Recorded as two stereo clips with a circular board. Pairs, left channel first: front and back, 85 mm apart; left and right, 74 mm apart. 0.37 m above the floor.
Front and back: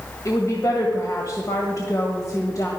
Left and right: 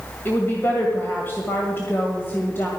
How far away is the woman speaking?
About 1.7 m.